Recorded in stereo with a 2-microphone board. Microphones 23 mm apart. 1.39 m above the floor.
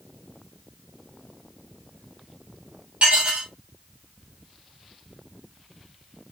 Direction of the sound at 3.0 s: 60° right (ahead or behind).